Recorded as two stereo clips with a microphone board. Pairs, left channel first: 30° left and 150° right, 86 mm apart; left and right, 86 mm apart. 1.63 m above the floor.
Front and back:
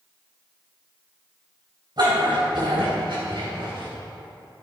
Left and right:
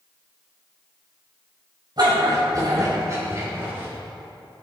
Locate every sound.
2.0 s a dog barking: 120° right, 4 m; by 3.9 s 155° right, 4.5 m